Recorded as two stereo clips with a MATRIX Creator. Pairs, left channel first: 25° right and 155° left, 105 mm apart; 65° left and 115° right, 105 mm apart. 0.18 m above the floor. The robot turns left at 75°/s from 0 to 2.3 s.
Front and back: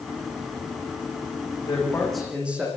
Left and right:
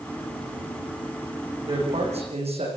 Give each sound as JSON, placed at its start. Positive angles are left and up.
{"t": 1.6, "sound": "a man speaking", "azimuth_deg": -75, "distance_m": 9.5}